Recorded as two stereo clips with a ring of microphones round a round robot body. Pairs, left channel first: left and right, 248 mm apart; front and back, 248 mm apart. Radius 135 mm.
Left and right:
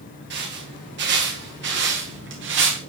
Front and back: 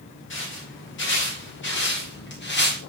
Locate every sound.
0.3 s footsteps: 45° right, 5.5 m; by 2.8 s 50° right, 3.5 m